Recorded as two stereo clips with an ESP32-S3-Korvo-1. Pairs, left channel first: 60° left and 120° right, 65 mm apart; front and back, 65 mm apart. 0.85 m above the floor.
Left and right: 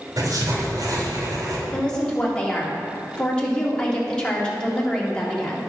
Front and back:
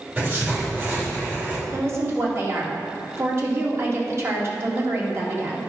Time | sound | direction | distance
0.2 | writing | 125° right | 3 m
1.7 | a woman speaking | 135° left | 2 m